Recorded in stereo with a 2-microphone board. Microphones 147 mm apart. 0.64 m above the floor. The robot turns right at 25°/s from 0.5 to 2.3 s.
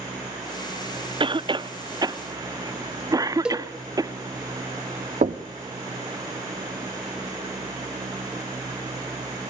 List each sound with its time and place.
1.2 s a cough: 35° right (ahead or behind), 0.6 m; by 4.1 s 25° right (ahead or behind), 0.6 m
3.5 s a cowbell: 5° right (ahead or behind), 1.0 m
5.2 s knocking: 55° right (ahead or behind), 0.7 m